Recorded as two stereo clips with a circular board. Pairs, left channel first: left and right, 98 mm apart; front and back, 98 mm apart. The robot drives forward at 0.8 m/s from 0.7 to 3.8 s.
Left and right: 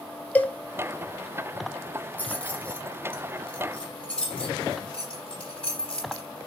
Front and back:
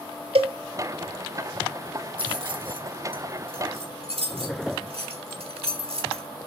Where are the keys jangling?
160° left, 2.0 m; by 6.3 s 170° left, 3 m.